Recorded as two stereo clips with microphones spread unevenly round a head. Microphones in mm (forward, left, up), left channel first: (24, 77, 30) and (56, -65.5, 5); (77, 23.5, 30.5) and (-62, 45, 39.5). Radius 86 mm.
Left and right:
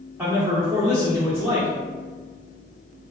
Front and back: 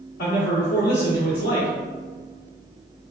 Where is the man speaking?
5° right, 1.2 m.